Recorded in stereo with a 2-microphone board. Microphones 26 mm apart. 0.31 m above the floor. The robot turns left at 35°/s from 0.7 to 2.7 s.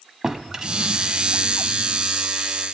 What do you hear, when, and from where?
0.2 s a drawer: 155° right, 1.0 m; by 2.1 s 155° left, 1.0 m